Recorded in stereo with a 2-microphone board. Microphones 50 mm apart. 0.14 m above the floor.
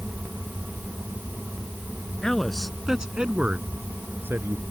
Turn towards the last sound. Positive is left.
turn(degrees=-50)  # may be behind; listen again after turning